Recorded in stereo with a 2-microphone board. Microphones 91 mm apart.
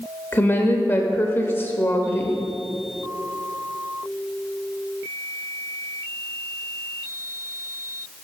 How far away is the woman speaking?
About 0.9 m.